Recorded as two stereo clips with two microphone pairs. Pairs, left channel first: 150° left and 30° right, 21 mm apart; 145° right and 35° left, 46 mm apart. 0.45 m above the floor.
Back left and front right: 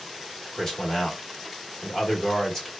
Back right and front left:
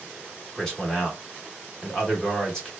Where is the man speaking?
155° left, 1.2 m.